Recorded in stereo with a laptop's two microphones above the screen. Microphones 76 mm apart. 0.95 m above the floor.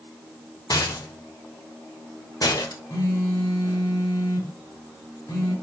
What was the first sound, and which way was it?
A rattle, 50° left (ahead or behind).